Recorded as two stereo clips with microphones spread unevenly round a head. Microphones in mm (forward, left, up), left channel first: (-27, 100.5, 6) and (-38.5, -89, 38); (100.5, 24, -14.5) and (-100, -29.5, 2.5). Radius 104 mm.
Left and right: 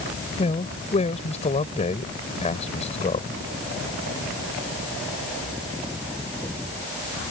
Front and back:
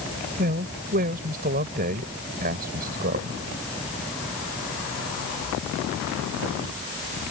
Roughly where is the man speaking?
Behind left.